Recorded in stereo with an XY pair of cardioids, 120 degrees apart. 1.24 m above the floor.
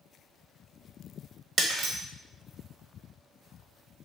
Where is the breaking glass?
35° right, 1.0 m.